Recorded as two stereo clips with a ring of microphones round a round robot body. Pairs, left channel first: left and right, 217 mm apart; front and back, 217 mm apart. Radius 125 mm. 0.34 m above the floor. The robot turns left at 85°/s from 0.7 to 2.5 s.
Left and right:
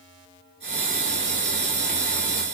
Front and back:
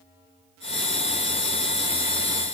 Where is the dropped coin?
No dropped coin in this recording.